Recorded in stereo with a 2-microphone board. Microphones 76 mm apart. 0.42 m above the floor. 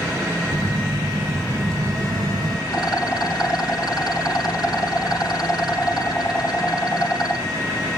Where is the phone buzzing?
50° right (ahead or behind), 2.5 m.